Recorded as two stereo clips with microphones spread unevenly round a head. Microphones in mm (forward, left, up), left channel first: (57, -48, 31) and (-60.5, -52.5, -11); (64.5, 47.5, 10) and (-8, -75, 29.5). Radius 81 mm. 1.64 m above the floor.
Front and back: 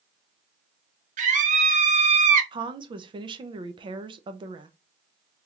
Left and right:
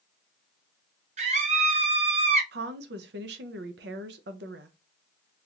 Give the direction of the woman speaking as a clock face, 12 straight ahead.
4 o'clock.